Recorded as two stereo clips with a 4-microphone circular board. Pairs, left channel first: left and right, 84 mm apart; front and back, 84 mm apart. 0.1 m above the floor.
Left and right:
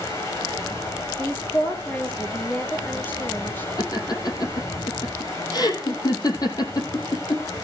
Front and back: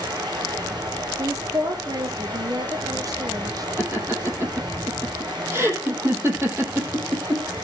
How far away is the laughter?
About 4.5 m.